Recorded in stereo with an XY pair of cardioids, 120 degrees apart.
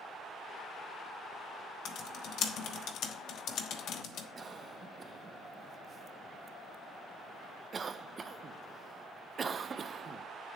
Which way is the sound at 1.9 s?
70° left.